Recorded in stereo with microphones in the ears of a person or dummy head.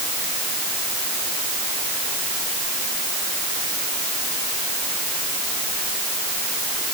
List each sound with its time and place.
Only background noise.